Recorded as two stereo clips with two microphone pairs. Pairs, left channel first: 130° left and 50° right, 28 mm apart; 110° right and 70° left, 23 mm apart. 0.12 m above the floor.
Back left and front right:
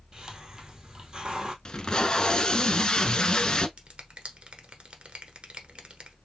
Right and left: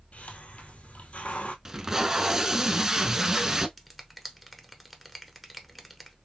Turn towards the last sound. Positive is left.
turn(degrees=-25)